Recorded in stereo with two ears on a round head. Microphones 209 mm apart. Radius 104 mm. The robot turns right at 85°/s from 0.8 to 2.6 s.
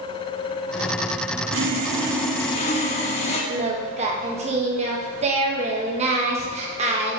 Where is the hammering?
I don't hear hammering.